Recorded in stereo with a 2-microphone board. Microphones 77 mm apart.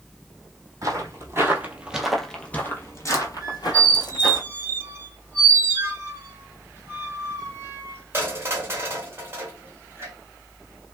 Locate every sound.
0.8 s footsteps: 45° right (ahead or behind), 1.1 m; by 4.4 s 65° left (ahead or behind), 1.4 m
3.4 s a squeak: 30° right (ahead or behind), 1.0 m